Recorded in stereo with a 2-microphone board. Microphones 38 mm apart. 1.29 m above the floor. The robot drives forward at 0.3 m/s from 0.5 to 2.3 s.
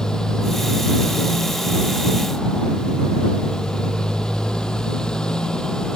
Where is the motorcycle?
20° left (ahead or behind).